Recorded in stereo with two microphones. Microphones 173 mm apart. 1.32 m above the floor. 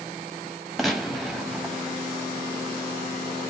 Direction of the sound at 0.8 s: Centre (ahead or behind).